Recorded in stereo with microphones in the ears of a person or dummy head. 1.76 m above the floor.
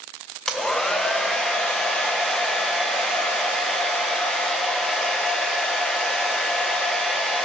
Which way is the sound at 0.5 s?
5° left (ahead or behind).